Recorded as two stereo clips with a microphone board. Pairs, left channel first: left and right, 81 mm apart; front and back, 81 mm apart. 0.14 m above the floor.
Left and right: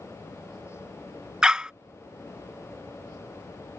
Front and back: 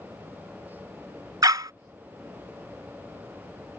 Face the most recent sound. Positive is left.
turn(degrees=-165)